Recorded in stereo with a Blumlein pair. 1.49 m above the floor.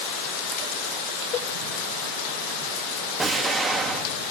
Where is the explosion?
10° right, 3 m.